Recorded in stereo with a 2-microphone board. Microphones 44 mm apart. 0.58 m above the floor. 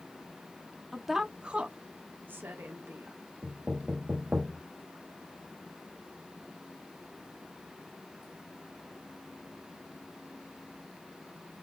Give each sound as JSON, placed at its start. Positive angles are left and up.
{"t": 0.9, "sound": "a woman speaking", "side_deg": 5, "distance_m": 0.7}
{"t": 3.4, "sound": "knocking", "side_deg": -30, "distance_m": 2.5}